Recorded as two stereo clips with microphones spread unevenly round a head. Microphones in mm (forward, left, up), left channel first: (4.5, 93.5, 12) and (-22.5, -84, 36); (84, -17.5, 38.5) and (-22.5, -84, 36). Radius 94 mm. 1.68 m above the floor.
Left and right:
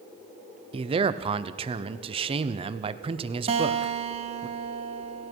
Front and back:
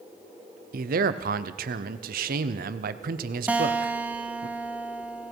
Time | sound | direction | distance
0.7 | a man speaking | 160° right | 0.7 m
3.5 | a guitar | 75° right | 0.7 m